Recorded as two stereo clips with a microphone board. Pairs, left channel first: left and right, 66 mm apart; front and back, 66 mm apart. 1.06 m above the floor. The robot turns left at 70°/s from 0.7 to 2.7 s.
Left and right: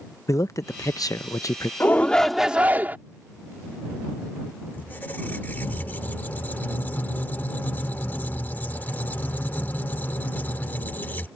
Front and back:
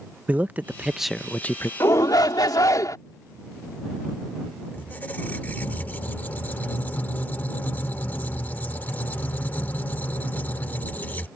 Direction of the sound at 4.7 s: 45° left.